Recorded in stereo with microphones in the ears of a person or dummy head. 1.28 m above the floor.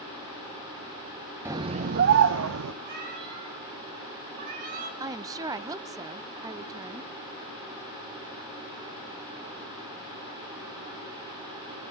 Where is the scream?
15° right (ahead or behind), 0.7 m; by 2.7 s 80° right, 1.0 m.